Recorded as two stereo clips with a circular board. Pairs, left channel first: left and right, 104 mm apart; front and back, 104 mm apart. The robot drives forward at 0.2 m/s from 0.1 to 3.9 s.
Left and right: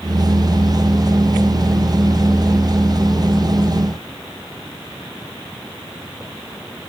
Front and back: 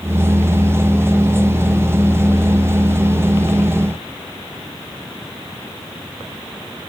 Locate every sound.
Only background noise.